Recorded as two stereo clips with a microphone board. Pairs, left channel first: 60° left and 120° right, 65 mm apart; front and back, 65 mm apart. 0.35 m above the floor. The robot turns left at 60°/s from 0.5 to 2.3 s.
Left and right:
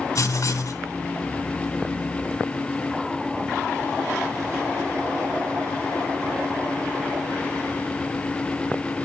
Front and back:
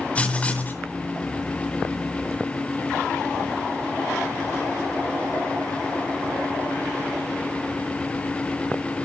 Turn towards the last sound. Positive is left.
turn(degrees=-45)